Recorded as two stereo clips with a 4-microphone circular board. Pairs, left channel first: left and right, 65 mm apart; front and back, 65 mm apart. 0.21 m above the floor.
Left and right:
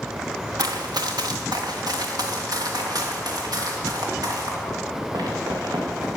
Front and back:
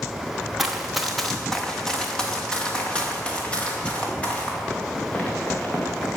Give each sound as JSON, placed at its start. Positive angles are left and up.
{"t": 0.6, "sound": "running footsteps", "azimuth_deg": -95, "distance_m": 1.3}